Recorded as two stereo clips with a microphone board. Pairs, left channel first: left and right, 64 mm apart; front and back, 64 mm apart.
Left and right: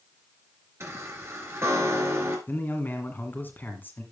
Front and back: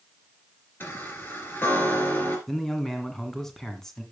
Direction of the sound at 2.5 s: 80° left.